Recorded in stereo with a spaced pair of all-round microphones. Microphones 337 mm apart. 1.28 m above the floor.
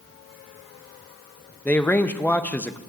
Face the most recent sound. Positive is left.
turn(degrees=5)  # may be behind; listen again after turning